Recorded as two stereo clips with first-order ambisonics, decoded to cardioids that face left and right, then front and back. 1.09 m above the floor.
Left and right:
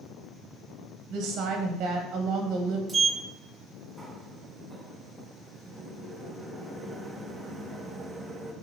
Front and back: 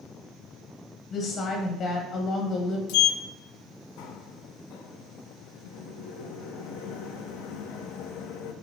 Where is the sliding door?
10° right, 0.7 m.